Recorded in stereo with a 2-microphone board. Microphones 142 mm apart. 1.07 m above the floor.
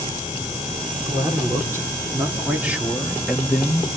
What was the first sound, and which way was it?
A man speaking, 25° right (ahead or behind).